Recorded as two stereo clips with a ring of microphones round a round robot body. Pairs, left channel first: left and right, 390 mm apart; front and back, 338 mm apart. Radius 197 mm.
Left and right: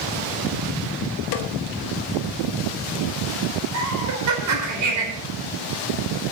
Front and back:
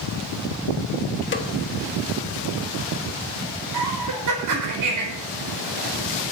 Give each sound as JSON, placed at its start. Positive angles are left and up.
{"t": 1.3, "sound": "a snare drum", "azimuth_deg": 55, "distance_m": 1.4}
{"t": 3.7, "sound": "laughter", "azimuth_deg": -135, "distance_m": 4.5}